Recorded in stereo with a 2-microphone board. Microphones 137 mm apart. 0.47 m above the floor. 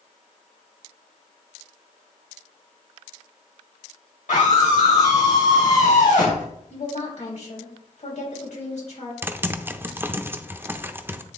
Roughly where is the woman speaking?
Left.